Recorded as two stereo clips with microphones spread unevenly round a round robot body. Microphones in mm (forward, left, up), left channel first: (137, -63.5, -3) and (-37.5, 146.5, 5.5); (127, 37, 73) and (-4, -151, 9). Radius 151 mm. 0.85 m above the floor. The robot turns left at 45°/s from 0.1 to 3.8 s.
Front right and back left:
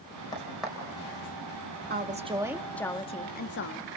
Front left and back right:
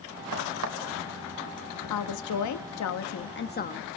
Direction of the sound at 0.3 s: 130° right.